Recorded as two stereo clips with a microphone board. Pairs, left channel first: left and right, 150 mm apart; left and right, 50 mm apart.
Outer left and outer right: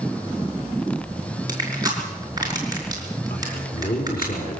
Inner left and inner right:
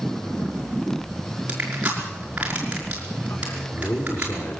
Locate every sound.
1.5 s crushing: 25° right (ahead or behind), 5.5 m
3.3 s a man speaking: 80° left, 4.5 m